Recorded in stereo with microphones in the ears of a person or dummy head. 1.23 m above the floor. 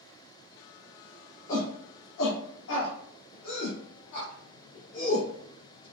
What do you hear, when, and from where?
1.5 s a shout: 45° left (ahead or behind), 1.1 m; by 5.9 s 85° left, 3 m